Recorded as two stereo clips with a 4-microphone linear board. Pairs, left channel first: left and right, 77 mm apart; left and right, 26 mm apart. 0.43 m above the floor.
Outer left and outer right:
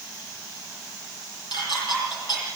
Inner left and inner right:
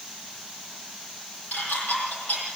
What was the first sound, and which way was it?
Dishes clattering, 80° left.